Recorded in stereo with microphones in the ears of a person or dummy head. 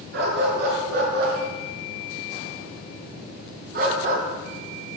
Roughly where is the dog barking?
Right.